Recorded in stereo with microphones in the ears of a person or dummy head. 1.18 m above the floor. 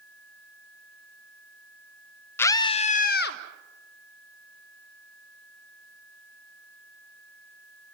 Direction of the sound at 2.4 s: 15° left (ahead or behind).